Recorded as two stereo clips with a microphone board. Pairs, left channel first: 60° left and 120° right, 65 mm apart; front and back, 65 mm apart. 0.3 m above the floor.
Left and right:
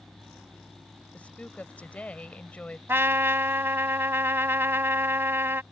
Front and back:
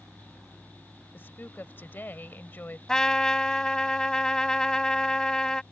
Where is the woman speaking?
15° left.